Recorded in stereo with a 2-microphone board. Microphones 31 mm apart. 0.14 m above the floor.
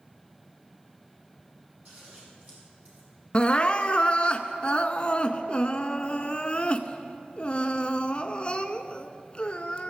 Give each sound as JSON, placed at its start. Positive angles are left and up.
{"t": 1.9, "sound": "scissors", "side_deg": -50, "distance_m": 5.5}
{"t": 3.3, "sound": "crying", "side_deg": 35, "distance_m": 0.6}